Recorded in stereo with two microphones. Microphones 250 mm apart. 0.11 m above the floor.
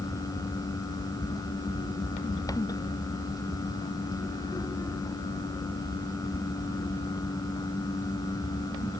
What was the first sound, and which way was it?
Only background noise.